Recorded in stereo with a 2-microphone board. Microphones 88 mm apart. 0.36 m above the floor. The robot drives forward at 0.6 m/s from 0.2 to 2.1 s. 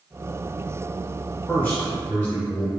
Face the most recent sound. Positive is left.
turn(degrees=20)  # may be behind; listen again after turning